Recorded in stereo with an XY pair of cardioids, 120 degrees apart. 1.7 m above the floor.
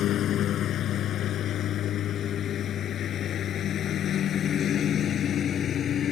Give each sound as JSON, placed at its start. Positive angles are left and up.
{"t": 0.0, "sound": "a lawn mower", "azimuth_deg": 65}